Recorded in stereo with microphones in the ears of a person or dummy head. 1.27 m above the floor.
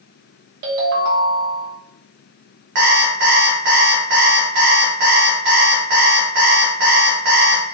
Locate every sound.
0.6 s a ringtone: 50° right (ahead or behind), 0.8 m
2.8 s an alarm clock: 55° right (ahead or behind), 0.8 m